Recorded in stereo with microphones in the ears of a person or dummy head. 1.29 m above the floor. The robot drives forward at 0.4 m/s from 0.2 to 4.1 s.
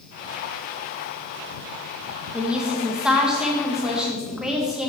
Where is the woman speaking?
5° right (ahead or behind), 0.9 m; by 4.9 s centre (ahead or behind), 1.6 m.